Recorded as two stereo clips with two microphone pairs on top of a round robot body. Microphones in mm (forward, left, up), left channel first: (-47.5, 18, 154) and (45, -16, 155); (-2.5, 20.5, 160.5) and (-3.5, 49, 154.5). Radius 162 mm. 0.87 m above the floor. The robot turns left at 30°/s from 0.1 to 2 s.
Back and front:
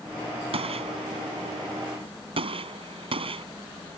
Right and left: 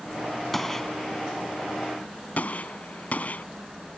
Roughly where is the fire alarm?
I don't hear a fire alarm.